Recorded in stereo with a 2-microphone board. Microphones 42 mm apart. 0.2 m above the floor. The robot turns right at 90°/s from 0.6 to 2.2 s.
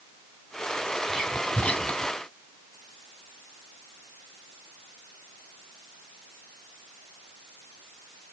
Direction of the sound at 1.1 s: 5° left (ahead or behind).